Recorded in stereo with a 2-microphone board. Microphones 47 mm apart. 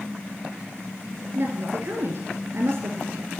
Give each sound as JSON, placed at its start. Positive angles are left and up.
{"t": 1.4, "sound": "a woman speaking", "side_deg": -55, "distance_m": 2.0}